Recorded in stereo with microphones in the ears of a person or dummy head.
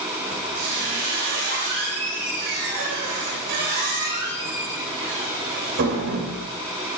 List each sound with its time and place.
0.3 s a squeak: 60° right (ahead or behind), 4 m